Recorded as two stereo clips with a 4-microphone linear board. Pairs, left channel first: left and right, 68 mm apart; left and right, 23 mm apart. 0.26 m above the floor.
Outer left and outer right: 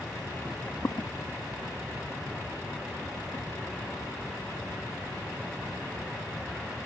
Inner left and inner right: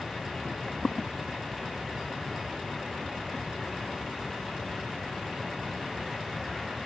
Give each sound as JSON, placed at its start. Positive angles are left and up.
{"t": 0.5, "sound": "footsteps", "side_deg": 5, "distance_m": 0.7}